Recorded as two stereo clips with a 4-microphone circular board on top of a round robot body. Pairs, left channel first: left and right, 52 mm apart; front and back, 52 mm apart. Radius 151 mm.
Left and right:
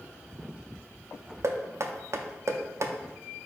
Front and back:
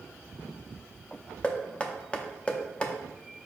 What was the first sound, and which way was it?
Knocking, 70° right.